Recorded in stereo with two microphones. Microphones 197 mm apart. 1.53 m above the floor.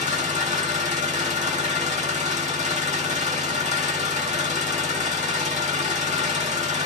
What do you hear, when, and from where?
0.0 s an engine running: 40° right (ahead or behind), 2.0 m